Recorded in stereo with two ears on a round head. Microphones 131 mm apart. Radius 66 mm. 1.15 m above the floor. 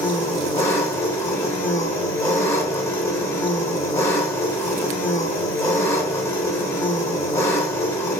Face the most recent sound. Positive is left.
turn(degrees=20)  # may be behind; listen again after turning